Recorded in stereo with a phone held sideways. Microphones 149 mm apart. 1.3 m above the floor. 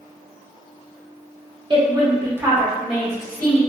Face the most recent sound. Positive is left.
turn(degrees=10)  # may be behind; listen again after turning